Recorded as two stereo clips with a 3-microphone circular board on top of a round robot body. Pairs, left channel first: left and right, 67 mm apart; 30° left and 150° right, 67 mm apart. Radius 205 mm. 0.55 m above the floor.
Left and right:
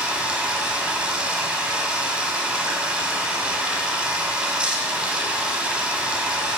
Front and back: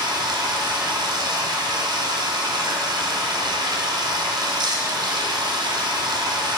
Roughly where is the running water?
Behind.